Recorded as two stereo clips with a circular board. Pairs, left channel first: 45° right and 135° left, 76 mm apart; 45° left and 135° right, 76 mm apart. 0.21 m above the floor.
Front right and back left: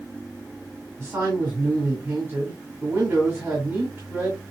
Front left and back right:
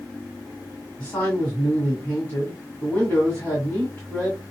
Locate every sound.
1.0 s a man speaking: 100° left, 1.8 m